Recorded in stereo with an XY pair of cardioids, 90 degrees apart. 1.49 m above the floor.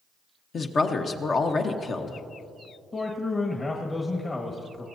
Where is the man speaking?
30° left, 1.5 m.